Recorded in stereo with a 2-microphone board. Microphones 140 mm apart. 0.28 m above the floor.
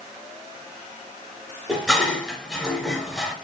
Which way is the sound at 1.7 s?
Centre (ahead or behind).